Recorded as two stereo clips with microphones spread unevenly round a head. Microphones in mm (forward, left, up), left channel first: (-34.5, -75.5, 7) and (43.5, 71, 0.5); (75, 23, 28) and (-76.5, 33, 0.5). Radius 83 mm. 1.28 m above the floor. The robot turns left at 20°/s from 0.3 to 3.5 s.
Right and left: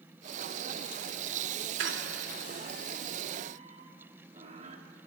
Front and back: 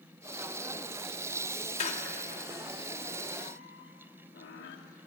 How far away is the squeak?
About 2.5 m.